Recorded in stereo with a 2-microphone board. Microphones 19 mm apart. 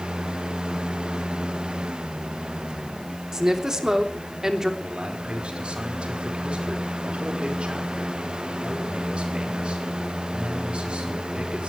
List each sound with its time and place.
3.3 s a woman speaking: 30° right (ahead or behind), 3 m
4.8 s a man speaking: 75° right (ahead or behind), 5 m